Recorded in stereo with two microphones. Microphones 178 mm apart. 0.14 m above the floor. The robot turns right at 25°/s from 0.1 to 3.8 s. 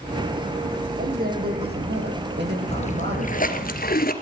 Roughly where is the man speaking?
Behind right.